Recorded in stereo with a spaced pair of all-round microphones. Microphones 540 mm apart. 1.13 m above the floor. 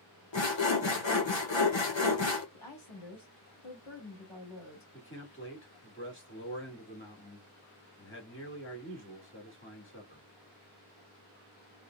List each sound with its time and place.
0.3 s sawing: 60° left (ahead or behind), 1.0 m
2.5 s a woman speaking: 70° left (ahead or behind), 2.0 m
4.9 s a man speaking: 25° left (ahead or behind), 1.7 m